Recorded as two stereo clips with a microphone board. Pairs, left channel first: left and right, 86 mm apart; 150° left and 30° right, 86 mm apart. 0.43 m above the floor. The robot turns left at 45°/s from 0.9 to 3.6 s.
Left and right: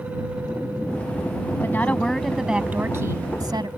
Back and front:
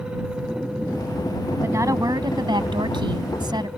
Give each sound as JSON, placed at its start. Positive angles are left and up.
{"t": 1.6, "sound": "a woman speaking", "azimuth_deg": 30}